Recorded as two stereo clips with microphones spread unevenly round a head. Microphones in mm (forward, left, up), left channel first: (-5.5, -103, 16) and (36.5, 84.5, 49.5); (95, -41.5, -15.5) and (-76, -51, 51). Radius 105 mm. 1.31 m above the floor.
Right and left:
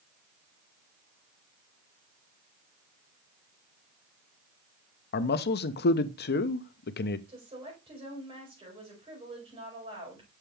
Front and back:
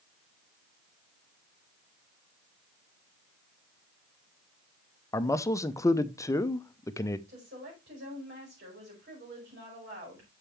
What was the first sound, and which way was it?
A man speaking, 65° right.